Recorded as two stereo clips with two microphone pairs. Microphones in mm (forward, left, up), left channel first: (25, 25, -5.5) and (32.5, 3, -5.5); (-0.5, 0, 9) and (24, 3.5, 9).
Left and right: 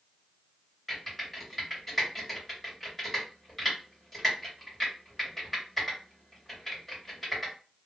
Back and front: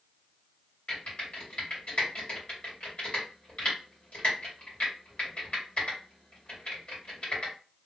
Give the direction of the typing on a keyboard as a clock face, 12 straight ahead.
6 o'clock.